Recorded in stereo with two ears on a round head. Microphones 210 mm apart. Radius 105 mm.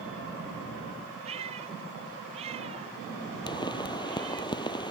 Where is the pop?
20° left (ahead or behind).